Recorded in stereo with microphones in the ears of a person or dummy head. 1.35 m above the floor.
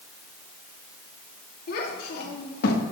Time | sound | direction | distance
1.7 | a child speaking | 65° left (ahead or behind) | 2.5 m